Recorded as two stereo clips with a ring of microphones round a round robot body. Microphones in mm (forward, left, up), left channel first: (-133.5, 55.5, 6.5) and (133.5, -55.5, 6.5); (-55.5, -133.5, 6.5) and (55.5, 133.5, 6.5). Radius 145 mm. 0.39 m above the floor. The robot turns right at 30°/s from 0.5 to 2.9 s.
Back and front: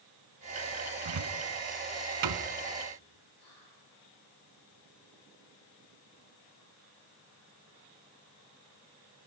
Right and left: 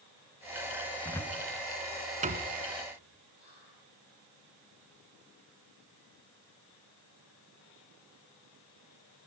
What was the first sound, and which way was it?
A cupboard door, 35° right.